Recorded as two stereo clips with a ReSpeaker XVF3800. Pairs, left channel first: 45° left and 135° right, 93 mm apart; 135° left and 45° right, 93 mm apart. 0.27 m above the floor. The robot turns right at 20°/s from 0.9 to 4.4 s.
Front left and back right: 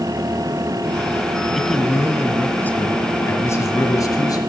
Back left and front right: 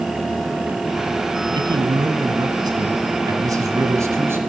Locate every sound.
1.6 s a man speaking: 45° right, 2 m; by 4.4 s 15° left, 2 m